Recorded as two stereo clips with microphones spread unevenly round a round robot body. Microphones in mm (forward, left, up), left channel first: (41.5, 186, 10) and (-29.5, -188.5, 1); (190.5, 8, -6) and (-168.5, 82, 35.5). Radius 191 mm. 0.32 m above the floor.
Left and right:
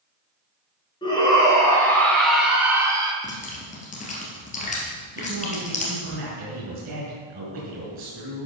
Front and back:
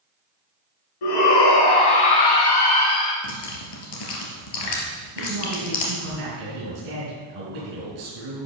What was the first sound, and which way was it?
A shout, straight ahead.